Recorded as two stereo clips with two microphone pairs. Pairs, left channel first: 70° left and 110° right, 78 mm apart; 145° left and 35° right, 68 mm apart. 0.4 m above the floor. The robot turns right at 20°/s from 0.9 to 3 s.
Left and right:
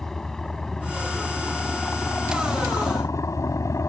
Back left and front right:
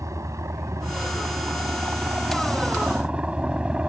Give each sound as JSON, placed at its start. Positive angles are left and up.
{"t": 0.0, "sound": "a helicopter", "azimuth_deg": -10}